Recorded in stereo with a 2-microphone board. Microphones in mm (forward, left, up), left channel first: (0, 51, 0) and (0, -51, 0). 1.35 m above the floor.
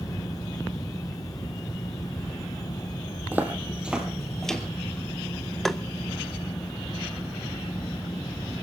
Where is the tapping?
5° left (ahead or behind), 0.7 m.